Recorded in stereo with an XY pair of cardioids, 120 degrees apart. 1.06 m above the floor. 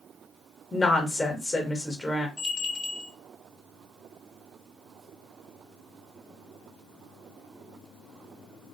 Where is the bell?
45° left, 0.7 m.